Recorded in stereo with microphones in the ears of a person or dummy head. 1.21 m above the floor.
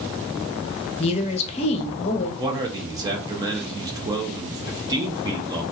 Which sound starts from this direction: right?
A man speaking, at 2.4 s.